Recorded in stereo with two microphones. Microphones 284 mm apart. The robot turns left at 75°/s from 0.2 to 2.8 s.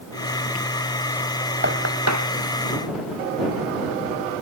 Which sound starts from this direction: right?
Knocking, at 1.6 s.